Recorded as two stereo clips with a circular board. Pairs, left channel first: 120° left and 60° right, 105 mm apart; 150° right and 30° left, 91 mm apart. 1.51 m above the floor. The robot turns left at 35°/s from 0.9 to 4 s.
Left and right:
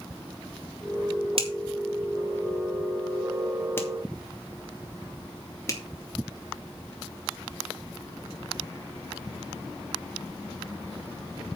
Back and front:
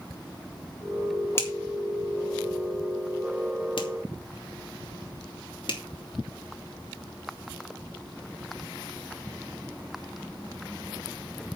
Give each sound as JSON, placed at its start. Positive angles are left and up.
{"t": 1.4, "sound": "a finger snap", "azimuth_deg": -90, "distance_m": 3.0}